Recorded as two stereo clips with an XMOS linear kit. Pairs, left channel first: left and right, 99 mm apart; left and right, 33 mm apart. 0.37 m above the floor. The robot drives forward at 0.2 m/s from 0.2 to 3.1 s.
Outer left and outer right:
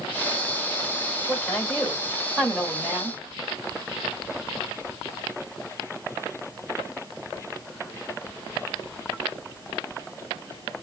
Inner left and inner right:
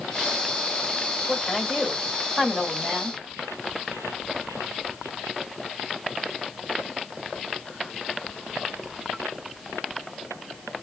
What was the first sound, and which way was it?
A woman speaking, 10° left (ahead or behind).